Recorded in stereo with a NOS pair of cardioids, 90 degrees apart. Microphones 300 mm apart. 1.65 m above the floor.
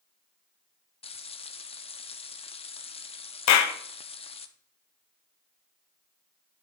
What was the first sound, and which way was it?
Frying, 20° left.